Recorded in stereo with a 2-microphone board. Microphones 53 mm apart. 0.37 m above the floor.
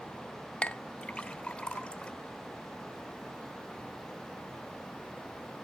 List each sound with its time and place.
0.6 s a clink: 20° left (ahead or behind), 0.7 m